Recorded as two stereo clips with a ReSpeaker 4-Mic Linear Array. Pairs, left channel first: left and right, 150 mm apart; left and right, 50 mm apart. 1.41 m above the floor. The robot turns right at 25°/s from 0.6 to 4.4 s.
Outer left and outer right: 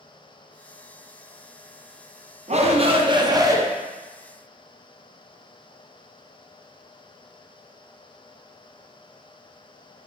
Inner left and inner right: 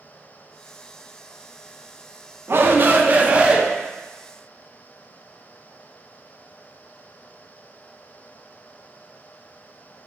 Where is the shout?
50° right (ahead or behind), 0.6 m; by 3.6 s 20° right (ahead or behind), 0.6 m.